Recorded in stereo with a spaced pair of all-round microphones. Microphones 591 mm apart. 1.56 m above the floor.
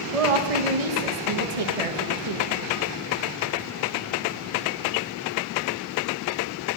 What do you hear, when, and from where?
0.1 s a woman speaking: 70° right (ahead or behind), 1.6 m